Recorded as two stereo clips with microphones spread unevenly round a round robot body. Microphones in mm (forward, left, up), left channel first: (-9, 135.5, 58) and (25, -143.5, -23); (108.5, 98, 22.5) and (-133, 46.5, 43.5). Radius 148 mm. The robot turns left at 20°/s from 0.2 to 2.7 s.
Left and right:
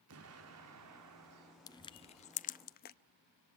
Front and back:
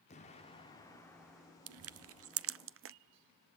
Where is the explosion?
50° right, 1.7 m; by 1.6 s 80° right, 1.7 m.